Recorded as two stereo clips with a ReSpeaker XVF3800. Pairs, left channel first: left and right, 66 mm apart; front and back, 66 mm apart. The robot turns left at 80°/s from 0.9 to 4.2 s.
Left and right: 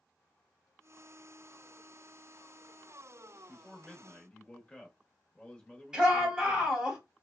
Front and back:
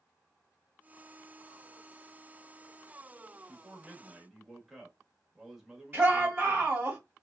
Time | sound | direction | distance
3.5 | a man speaking | 165° left | 0.9 m
5.9 | a shout | 155° right | 1.8 m